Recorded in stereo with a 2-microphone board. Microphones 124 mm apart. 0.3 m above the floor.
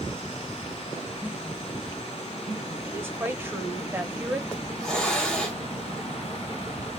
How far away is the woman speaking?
About 0.9 m.